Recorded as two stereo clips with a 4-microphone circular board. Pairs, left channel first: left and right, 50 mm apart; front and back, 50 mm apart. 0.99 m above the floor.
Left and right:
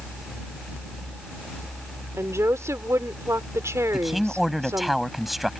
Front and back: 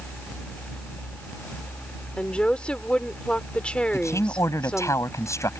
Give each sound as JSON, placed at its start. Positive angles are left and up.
{"t": 2.2, "sound": "a woman speaking", "azimuth_deg": -70}
{"t": 3.9, "sound": "a man speaking", "azimuth_deg": 0}